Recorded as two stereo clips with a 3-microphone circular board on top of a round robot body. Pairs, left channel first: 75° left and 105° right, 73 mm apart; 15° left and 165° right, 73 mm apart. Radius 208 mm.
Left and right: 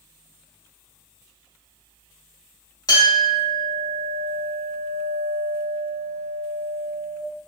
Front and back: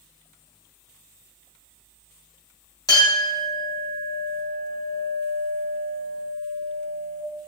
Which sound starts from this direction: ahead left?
A clink, at 2.9 s.